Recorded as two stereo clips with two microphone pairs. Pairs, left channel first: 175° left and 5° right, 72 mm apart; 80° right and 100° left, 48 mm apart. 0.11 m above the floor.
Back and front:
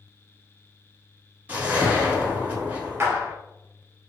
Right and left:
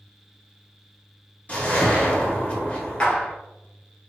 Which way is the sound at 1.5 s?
50° right.